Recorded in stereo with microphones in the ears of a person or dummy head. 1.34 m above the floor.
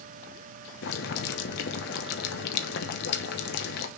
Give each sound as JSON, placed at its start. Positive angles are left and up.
{"t": 0.8, "sound": "boiling", "side_deg": 65, "distance_m": 1.1}